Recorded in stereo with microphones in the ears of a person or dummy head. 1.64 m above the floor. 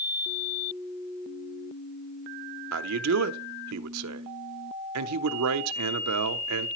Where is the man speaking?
75° right (ahead or behind), 0.6 m.